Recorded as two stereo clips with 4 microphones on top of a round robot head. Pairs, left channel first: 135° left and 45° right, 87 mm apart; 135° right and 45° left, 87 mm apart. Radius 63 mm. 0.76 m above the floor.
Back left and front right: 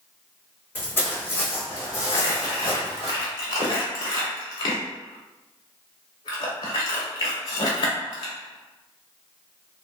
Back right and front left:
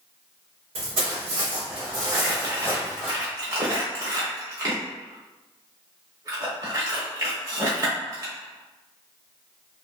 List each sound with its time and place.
0.8 s footsteps: 65° left, 1.6 m; by 3.1 s 130° left, 0.9 m
2.1 s crumpling: 100° left, 0.7 m